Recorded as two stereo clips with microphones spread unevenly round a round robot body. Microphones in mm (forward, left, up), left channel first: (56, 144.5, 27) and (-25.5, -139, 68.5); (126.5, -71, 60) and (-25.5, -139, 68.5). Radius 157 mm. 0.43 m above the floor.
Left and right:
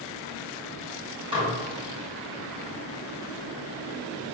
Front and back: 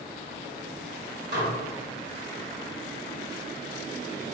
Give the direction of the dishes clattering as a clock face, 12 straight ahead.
6 o'clock.